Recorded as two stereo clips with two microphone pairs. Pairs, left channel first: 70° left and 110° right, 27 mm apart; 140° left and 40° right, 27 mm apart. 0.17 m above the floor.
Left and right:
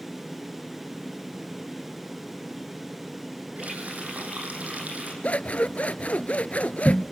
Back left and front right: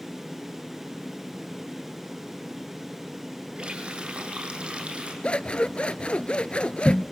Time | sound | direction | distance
3.6 | a running tap | 90° right | 5.5 m
5.2 | scissors | 95° left | 0.8 m